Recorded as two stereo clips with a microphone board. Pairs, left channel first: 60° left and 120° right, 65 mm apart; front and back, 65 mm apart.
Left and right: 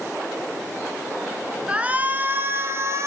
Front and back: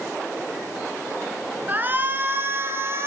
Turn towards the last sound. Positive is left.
turn(degrees=-145)